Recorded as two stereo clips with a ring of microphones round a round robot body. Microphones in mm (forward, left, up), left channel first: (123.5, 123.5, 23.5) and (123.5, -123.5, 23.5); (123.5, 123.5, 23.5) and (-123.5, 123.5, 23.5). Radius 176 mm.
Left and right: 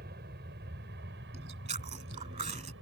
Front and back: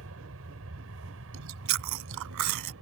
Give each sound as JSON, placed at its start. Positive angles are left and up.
{"t": 0.0, "sound": "an aircraft", "azimuth_deg": -145}
{"t": 1.3, "sound": "chewing", "azimuth_deg": -160}